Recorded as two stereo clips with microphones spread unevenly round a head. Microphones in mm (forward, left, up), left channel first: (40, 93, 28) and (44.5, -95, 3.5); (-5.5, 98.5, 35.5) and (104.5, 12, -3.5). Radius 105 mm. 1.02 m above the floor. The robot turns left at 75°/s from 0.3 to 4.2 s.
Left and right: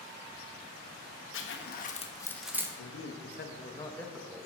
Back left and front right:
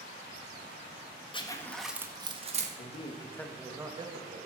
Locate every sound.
1.3 s a zipper: 80° left, 1.7 m; by 2.7 s 20° right, 1.7 m
2.8 s a man speaking: 100° left, 1.7 m; by 4.5 s 5° right, 1.7 m